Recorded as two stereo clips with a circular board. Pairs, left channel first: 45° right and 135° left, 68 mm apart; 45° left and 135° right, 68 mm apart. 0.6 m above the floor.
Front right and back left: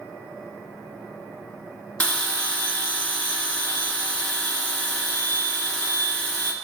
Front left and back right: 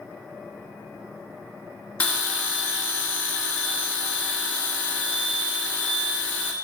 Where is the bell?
5° left, 0.9 m.